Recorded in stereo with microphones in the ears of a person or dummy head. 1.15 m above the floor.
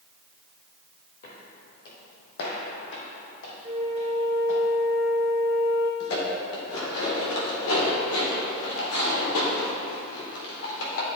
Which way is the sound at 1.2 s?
45° left (ahead or behind).